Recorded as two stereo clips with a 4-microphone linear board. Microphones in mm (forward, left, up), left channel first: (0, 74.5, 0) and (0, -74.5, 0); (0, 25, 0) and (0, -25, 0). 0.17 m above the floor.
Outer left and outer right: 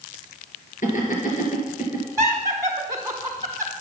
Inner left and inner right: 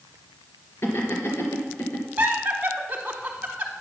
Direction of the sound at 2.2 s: 25° right (ahead or behind).